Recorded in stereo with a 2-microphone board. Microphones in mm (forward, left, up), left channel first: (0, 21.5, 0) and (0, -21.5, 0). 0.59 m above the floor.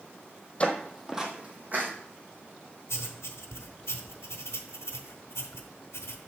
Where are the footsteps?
25° left (ahead or behind), 1.2 m; by 1.9 s 45° right (ahead or behind), 2.0 m.